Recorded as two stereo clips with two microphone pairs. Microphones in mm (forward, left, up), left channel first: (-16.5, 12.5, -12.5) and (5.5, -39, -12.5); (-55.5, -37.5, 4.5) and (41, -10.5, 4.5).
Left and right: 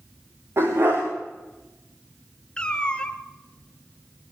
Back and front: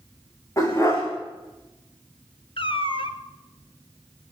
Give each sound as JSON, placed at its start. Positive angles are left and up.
{"t": 0.6, "sound": "a dog barking", "azimuth_deg": -105, "distance_m": 5.0}
{"t": 2.6, "sound": "a cat meowing", "azimuth_deg": -175, "distance_m": 0.9}